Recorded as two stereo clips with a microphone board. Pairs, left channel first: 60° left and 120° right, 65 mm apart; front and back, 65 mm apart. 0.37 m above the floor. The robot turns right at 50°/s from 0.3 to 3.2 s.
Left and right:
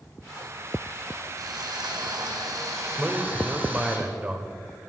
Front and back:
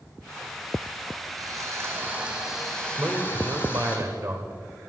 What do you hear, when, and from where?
1.4 s sawing: 150° right, 3 m; by 4.0 s 55° right, 3 m
3.0 s a man speaking: 165° left, 1.2 m; by 4.5 s straight behind, 1.2 m